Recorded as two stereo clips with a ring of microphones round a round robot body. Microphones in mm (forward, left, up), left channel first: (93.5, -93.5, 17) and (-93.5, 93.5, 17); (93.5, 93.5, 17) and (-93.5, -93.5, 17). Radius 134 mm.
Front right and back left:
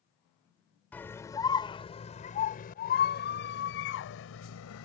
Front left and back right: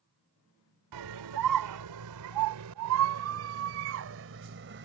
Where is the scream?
130° right; by 4.9 s 85° right.